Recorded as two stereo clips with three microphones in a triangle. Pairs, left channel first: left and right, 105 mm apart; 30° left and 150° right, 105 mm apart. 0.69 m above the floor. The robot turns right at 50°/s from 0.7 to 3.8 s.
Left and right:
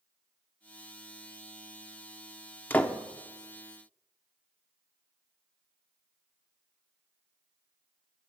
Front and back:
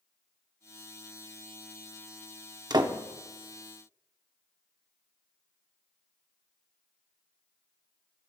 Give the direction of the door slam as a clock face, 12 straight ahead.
7 o'clock.